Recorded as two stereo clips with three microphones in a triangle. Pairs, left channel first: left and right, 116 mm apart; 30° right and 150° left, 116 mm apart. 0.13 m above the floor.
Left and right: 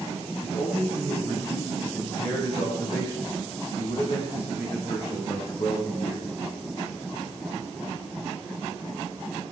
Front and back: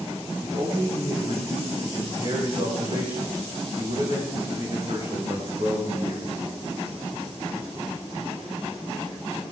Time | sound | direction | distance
0.4 | a man speaking | 120° left | 6 m